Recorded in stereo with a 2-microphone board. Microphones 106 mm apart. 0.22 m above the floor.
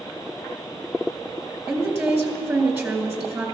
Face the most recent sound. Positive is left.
turn(degrees=-20)  # may be behind; listen again after turning